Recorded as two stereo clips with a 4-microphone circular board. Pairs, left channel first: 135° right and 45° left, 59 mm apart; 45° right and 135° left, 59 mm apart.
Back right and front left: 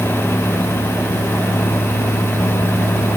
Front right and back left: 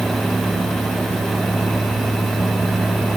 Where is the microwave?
No microwave in this recording.